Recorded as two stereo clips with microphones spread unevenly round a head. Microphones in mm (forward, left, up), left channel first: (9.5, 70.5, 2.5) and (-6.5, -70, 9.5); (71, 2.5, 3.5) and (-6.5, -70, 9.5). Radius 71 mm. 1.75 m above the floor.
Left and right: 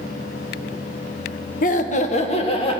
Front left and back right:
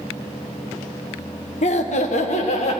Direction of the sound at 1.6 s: 60° left.